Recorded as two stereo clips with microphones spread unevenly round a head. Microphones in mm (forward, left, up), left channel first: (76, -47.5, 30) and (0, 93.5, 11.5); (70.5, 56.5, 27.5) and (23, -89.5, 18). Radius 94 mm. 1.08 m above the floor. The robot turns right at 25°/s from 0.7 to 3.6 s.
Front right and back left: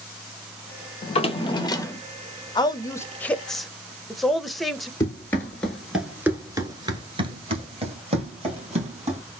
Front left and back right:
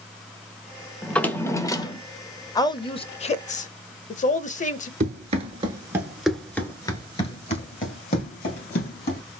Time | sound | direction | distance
1.0 | a drawer | 15° right | 0.6 m
2.5 | a woman speaking | 5° left | 0.6 m
5.0 | running footsteps | 120° right | 1.3 m